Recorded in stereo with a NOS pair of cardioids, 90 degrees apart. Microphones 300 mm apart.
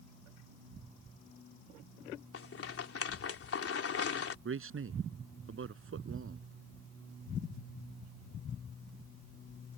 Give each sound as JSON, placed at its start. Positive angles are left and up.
{"t": 2.3, "sound": "a rattle", "azimuth_deg": 50}
{"t": 4.5, "sound": "a man speaking", "azimuth_deg": -45}